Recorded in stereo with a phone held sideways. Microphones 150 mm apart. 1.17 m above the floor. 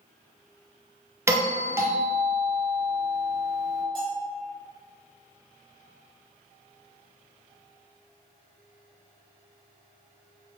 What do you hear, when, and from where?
1.3 s a doorbell: 20° right (ahead or behind), 0.7 m
4.0 s a bell: 35° left (ahead or behind), 1.0 m